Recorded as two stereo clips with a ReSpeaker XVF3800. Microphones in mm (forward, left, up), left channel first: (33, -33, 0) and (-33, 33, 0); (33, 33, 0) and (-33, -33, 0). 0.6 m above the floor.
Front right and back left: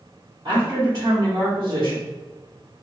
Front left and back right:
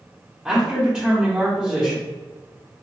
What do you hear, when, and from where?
0.5 s a man speaking: 145° left, 1.2 m